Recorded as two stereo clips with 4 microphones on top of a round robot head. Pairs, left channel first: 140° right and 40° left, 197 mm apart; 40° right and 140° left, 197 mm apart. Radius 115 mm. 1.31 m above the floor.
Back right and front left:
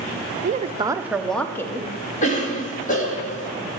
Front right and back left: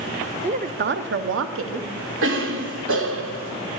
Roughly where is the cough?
Behind.